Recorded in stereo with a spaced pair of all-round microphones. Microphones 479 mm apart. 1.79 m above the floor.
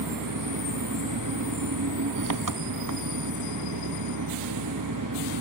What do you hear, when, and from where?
0.0 s an engine running: 45° right (ahead or behind), 0.8 m